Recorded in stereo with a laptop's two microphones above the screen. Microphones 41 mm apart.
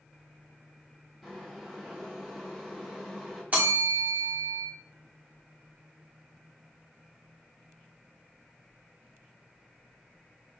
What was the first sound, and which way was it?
Boiling, centre (ahead or behind).